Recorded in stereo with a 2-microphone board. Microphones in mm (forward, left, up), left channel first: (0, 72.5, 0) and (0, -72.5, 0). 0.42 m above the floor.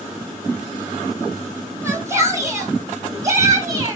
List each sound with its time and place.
1.8 s a shout: 20° right (ahead or behind), 3.5 m; by 4.0 s 25° right (ahead or behind), 5 m